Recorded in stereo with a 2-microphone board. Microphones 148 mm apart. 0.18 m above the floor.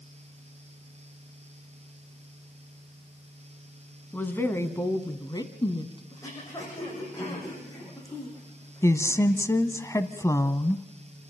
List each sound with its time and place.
4.1 s a woman speaking: 10° left (ahead or behind), 1.7 m; by 6.0 s 35° left (ahead or behind), 1.8 m
6.1 s throat clearing: 20° left (ahead or behind), 8.5 m
8.8 s a woman speaking: 20° left (ahead or behind), 1.0 m